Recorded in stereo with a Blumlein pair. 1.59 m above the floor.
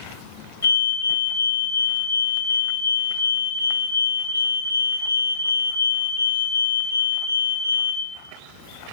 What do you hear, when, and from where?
0.6 s a fire alarm: 70° left, 4 m